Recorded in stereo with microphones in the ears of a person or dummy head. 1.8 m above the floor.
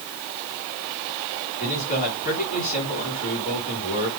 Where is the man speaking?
40° left (ahead or behind), 5.5 m.